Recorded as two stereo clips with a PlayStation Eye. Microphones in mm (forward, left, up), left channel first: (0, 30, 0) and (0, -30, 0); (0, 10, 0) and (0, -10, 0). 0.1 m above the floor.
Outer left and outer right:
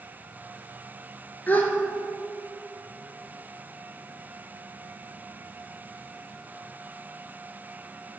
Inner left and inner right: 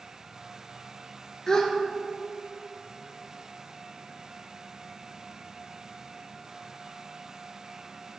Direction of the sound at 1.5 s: 30° left (ahead or behind).